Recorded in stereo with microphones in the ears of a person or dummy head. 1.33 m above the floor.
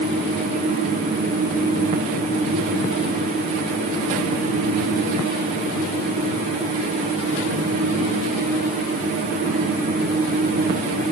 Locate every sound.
Only background noise.